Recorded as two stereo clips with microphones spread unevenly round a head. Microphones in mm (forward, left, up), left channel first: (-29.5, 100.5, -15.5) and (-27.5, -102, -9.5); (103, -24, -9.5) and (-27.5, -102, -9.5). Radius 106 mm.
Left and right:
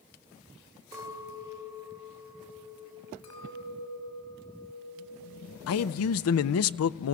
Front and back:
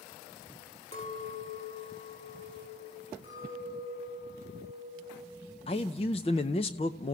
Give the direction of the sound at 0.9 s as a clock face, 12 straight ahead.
12 o'clock.